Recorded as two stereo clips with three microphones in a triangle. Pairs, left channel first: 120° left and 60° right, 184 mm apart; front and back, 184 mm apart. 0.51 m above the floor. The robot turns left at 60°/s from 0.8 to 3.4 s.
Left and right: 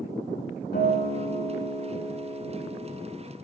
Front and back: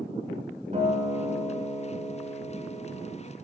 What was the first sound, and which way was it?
A guitar, 135° left.